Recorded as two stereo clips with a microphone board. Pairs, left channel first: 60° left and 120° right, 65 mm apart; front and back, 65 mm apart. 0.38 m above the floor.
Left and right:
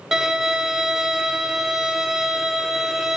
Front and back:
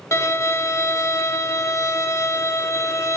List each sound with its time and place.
0.1 s a violin: 35° right, 0.7 m